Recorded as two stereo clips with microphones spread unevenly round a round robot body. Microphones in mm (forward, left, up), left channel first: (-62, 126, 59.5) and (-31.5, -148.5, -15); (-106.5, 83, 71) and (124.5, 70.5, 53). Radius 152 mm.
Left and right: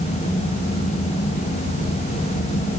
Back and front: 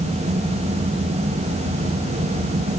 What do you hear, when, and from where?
Only background noise.